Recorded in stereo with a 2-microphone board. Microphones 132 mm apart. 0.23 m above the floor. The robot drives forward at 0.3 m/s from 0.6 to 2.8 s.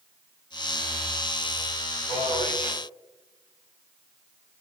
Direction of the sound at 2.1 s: 50° left (ahead or behind).